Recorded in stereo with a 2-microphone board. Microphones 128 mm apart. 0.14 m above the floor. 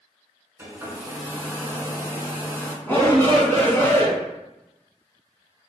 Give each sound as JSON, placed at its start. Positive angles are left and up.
{"t": 0.6, "sound": "a hair dryer", "side_deg": -20, "distance_m": 0.7}
{"t": 2.9, "sound": "a shout", "side_deg": 15, "distance_m": 1.3}